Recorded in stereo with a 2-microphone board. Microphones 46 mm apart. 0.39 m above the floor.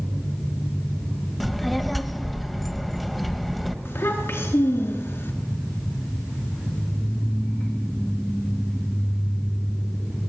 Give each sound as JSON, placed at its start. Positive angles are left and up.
{"t": 1.4, "sound": "a child speaking", "side_deg": 0, "distance_m": 1.1}
{"t": 3.9, "sound": "a child speaking", "side_deg": 60, "distance_m": 3.0}